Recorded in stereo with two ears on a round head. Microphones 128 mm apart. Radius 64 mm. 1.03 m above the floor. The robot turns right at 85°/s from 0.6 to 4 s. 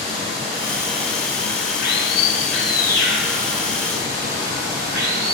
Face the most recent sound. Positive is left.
turn(degrees=-105)